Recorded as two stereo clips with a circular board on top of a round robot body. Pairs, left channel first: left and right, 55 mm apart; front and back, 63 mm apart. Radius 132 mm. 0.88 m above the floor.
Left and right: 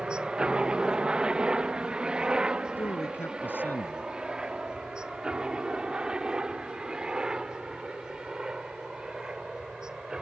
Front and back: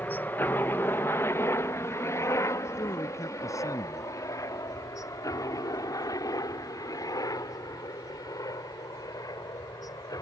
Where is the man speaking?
35° left.